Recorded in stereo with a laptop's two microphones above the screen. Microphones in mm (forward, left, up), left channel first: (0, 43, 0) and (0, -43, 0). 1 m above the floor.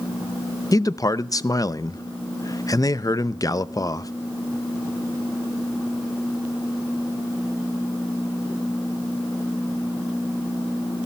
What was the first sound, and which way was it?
A man speaking, 40° left (ahead or behind).